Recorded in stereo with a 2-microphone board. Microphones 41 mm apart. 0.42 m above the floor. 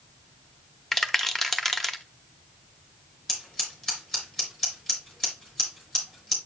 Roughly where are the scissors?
Centre.